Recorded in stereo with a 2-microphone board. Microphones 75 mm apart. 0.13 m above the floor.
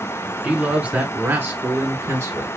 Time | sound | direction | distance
0.4 | a man speaking | 15° right (ahead or behind) | 1.9 m